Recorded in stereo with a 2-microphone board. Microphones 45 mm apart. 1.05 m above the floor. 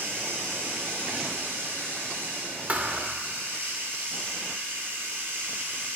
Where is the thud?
35° right (ahead or behind), 1.6 m.